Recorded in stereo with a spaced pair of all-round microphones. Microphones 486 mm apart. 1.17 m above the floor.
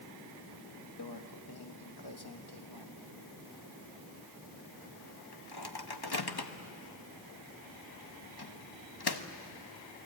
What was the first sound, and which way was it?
A microwave, 50° left (ahead or behind).